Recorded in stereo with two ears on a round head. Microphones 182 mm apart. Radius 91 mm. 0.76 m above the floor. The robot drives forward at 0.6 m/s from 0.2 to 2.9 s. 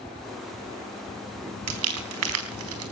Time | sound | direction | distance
1.7 | crumpling | 85° right | 4 m